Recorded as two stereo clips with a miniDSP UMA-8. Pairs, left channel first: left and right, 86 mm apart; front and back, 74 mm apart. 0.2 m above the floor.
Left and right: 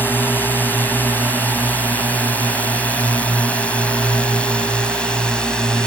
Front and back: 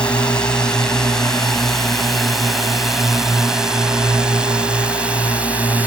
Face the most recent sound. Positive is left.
turn(degrees=155)